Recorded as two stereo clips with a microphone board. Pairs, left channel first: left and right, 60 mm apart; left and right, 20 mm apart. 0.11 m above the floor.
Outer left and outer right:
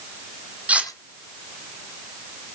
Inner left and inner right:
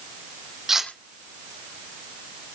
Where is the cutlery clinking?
20° right (ahead or behind), 3 m.